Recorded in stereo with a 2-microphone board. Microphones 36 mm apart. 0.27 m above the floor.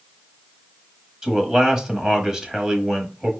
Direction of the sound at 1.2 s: 20° right (ahead or behind).